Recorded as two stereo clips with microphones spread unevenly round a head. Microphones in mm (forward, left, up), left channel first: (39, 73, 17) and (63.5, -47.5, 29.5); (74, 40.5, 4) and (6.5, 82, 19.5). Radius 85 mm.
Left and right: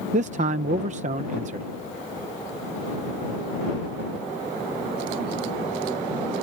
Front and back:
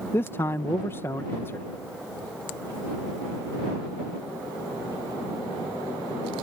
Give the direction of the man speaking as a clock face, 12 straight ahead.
3 o'clock.